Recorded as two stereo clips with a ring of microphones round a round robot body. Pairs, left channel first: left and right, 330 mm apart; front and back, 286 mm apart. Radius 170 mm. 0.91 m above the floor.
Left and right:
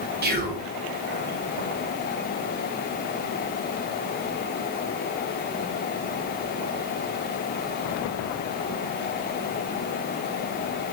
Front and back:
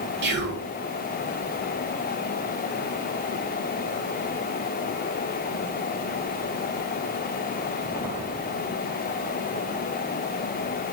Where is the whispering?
140° right, 1.1 m.